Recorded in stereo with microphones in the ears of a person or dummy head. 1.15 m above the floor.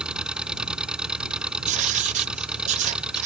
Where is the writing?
45° right (ahead or behind).